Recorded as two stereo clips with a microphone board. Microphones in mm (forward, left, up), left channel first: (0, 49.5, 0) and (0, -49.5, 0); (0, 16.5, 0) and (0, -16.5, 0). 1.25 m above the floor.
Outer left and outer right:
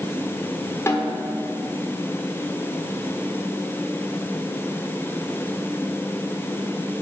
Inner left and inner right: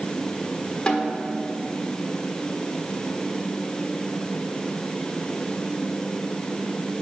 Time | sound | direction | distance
0.9 | a snare drum | 25° left (ahead or behind) | 1.3 m